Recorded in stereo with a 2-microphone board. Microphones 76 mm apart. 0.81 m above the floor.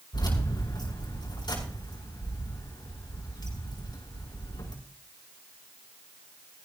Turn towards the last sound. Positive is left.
turn(degrees=70)  # may be behind; listen again after turning